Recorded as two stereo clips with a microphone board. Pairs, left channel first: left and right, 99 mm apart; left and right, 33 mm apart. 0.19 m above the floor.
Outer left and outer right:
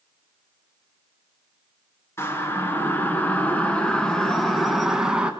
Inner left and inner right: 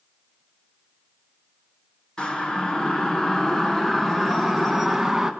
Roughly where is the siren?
Left.